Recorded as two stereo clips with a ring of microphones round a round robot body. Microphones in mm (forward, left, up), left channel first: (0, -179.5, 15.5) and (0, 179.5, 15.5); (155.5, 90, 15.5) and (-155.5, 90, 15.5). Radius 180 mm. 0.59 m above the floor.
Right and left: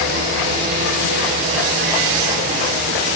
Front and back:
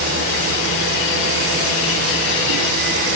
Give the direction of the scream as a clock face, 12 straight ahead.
I don't hear a scream.